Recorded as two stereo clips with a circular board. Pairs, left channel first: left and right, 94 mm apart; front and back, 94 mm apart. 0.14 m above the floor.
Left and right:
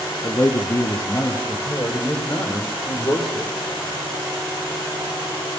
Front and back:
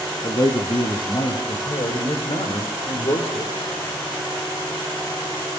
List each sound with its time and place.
0.2 s a man speaking: 30° left, 5 m; by 3.5 s straight ahead, 6.5 m